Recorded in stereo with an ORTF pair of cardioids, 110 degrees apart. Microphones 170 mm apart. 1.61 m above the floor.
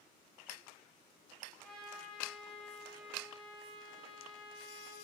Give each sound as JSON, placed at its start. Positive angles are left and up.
{"t": 1.6, "sound": "a trumpet", "azimuth_deg": 5, "distance_m": 1.3}